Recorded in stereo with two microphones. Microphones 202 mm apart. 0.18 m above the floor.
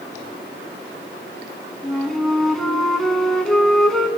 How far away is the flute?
About 0.8 m.